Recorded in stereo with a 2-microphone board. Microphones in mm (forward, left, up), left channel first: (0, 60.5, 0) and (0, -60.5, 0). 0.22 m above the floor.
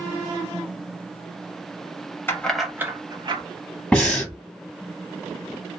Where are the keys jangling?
20° left (ahead or behind), 0.6 m; by 3.4 s 45° right (ahead or behind), 0.9 m.